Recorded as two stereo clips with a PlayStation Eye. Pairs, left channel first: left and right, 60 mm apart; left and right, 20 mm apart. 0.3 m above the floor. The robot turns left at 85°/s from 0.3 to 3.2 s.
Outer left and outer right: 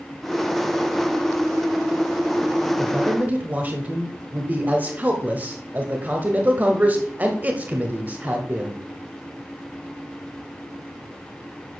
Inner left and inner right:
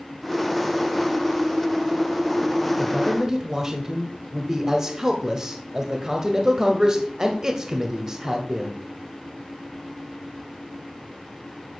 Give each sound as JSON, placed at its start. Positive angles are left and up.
{"t": 2.8, "sound": "a man speaking", "azimuth_deg": -20, "distance_m": 1.5}